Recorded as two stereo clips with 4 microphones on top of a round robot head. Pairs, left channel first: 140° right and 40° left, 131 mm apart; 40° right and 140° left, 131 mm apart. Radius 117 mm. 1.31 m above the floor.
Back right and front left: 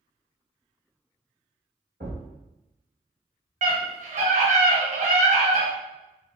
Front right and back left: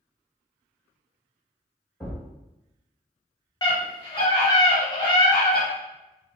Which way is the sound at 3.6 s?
15° left.